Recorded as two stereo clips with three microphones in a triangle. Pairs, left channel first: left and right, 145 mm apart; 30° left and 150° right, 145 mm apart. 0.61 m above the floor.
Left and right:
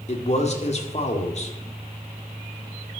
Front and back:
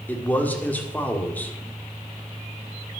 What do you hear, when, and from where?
0.1 s a man speaking: 105° left, 1.8 m